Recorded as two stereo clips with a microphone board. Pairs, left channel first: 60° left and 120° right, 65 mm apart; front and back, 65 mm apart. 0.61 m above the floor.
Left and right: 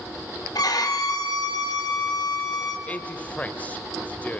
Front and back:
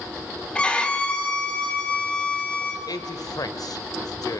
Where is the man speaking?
5° right, 1.9 m.